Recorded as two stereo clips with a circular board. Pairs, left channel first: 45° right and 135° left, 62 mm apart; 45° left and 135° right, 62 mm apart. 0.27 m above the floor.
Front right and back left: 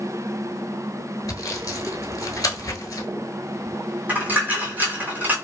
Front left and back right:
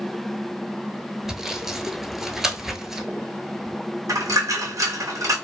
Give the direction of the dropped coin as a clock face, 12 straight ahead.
5 o'clock.